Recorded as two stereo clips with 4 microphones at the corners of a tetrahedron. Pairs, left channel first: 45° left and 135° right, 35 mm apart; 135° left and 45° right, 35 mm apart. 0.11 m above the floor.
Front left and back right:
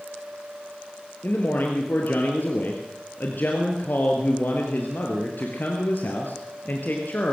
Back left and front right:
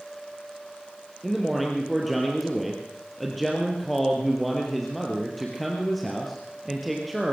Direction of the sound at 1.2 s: 45° left.